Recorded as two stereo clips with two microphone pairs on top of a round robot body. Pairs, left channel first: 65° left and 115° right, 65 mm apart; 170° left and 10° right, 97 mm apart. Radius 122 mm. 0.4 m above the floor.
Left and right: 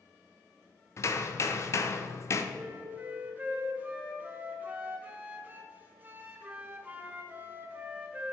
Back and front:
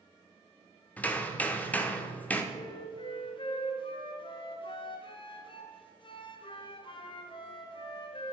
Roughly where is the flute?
Behind.